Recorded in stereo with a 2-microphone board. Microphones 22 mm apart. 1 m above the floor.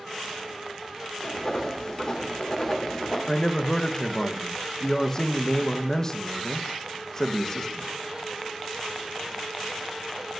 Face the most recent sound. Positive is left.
turn(degrees=20)  # may be behind; listen again after turning